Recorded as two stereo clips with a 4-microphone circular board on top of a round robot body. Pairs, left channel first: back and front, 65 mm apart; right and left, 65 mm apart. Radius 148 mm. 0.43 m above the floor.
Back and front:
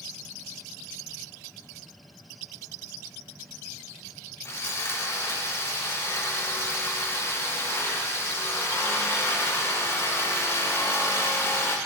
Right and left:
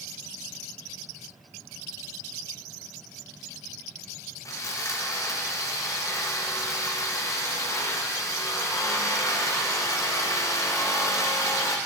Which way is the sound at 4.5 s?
130° right.